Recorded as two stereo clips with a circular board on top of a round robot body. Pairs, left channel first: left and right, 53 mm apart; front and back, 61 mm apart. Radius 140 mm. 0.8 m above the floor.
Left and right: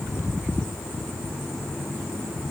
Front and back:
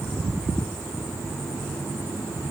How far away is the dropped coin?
No dropped coin in this recording.